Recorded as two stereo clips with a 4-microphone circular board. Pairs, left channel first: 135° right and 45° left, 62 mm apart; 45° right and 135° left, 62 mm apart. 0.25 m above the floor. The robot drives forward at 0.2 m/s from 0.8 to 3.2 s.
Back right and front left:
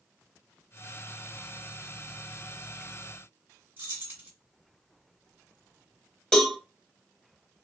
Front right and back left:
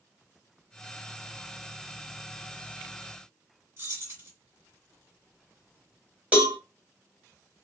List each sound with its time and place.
3.8 s keys jangling: 95° left, 1.8 m
6.3 s a cowbell: 150° left, 1.1 m